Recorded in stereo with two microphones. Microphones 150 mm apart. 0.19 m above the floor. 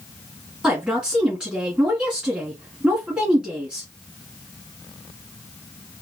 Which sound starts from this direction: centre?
A woman speaking, at 0.6 s.